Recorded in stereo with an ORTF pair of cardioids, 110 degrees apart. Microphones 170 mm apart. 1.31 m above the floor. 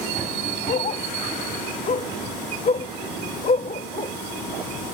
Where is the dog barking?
40° left.